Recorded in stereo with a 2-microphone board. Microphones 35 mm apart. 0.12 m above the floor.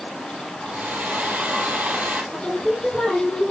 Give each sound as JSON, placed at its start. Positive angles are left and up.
{"t": 0.6, "sound": "a hair dryer", "side_deg": -55, "distance_m": 2.5}
{"t": 2.3, "sound": "singing", "side_deg": 5, "distance_m": 5.0}